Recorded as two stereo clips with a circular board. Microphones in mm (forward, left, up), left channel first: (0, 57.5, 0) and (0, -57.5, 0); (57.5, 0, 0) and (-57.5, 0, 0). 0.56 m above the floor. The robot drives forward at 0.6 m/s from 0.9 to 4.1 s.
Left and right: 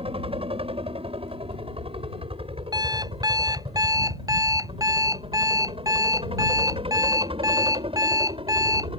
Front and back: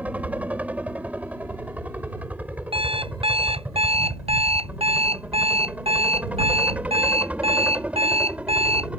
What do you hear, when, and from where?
0.0 s a helicopter: 105° right; by 9.0 s 100° right
2.7 s an alarm clock: 145° right; by 8.9 s 150° right